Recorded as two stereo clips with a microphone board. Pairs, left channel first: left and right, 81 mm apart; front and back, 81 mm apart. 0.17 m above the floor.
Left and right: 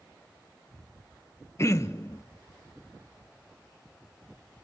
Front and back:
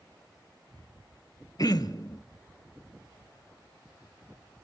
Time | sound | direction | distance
1.6 | throat clearing | 40° left | 0.7 m